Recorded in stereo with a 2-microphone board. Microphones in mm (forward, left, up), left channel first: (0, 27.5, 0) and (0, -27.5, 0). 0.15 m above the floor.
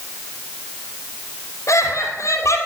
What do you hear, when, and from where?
1.7 s laughter: 70° left (ahead or behind), 3 m